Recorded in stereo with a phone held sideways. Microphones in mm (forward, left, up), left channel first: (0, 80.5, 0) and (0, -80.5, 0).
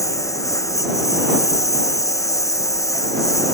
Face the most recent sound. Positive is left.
turn(degrees=20)  # may be behind; listen again after turning